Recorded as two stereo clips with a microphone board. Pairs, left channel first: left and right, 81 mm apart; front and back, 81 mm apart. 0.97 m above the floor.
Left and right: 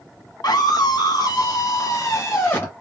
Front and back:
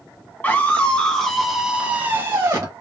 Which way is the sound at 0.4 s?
65° left.